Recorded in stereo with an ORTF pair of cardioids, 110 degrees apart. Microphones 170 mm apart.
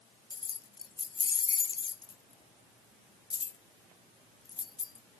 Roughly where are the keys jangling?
Ahead left.